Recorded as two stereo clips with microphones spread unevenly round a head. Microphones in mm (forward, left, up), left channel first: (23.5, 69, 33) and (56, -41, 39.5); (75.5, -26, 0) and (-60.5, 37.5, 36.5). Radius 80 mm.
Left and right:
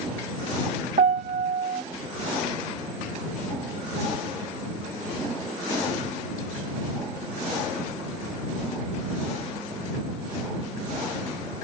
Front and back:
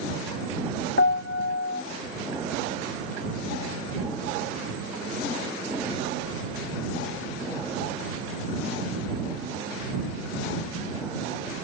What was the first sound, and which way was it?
A piano, 55° right.